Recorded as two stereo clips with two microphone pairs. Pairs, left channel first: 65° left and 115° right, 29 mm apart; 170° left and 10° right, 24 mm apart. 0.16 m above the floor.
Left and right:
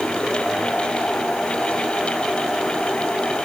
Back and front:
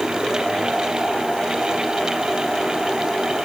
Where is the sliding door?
I don't hear a sliding door.